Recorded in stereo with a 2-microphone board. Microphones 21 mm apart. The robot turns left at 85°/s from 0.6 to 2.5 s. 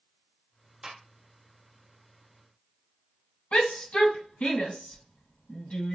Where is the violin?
No violin in this recording.